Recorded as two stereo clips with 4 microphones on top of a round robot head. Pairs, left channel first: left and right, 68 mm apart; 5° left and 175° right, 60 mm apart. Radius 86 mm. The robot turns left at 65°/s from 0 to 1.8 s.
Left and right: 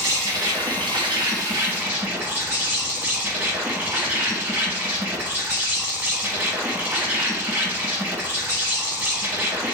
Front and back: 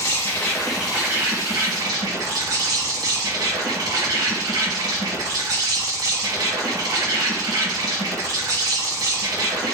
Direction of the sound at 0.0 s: 40° right.